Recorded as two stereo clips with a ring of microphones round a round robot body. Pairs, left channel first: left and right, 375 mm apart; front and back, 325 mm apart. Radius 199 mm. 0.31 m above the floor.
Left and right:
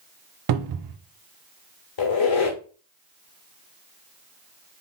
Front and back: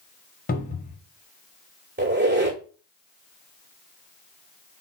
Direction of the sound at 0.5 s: 60° right.